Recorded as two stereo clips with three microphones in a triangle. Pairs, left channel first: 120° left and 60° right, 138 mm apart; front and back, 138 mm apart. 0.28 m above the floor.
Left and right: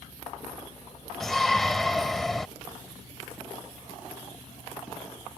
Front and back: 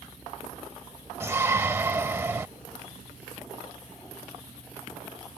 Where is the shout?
155° right.